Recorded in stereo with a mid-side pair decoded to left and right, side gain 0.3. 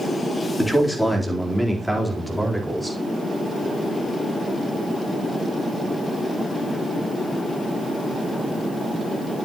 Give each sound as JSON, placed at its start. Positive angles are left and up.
{"t": 0.6, "sound": "a man speaking", "azimuth_deg": 15, "distance_m": 4.0}